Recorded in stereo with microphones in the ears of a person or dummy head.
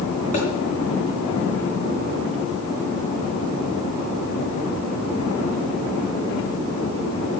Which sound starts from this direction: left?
A thud, at 0.3 s.